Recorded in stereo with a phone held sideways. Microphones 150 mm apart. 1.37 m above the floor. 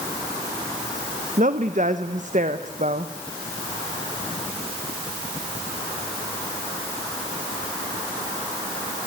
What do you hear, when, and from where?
1.4 s a woman speaking: 55° right (ahead or behind), 1.1 m